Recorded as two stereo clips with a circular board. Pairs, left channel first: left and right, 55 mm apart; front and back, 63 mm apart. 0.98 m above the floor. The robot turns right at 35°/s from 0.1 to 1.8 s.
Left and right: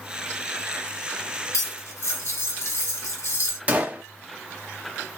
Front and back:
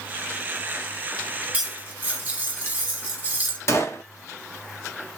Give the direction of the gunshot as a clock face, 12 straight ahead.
1 o'clock.